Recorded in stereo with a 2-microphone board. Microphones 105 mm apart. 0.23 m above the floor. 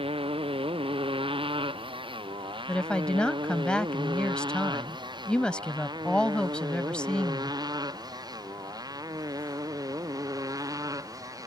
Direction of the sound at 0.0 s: 65° right (ahead or behind).